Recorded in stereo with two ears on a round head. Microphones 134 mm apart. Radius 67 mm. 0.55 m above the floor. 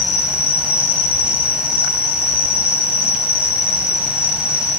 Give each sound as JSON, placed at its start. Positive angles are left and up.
{"t": 0.0, "sound": "an insect", "side_deg": -10, "distance_m": 2.5}